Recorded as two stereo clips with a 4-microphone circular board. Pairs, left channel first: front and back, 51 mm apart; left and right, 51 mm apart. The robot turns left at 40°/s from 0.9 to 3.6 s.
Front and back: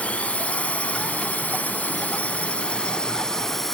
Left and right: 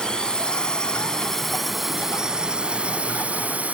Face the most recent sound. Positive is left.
turn(degrees=-75)